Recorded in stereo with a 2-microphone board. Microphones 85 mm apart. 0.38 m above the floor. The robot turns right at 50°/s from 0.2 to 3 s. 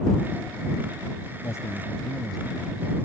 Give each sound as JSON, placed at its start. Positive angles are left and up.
{"t": 1.4, "sound": "a man speaking", "azimuth_deg": 135}